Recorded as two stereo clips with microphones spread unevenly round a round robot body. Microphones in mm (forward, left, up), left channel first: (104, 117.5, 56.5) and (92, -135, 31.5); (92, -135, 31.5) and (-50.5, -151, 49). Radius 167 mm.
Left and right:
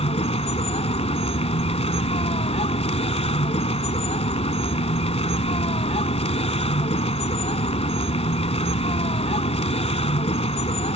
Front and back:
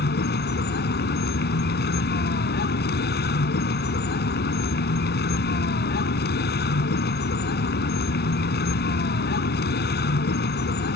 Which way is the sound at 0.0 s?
20° left.